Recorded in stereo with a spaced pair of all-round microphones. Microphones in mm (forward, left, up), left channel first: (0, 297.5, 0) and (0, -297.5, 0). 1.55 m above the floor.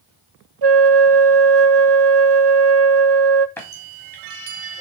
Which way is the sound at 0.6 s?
45° right (ahead or behind).